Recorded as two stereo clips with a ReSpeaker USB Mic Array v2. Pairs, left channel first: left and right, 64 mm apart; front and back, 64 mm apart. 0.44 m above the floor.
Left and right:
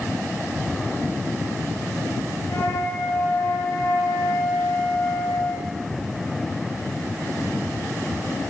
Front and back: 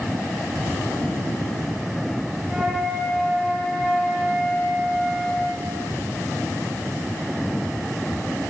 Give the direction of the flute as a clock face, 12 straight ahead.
9 o'clock.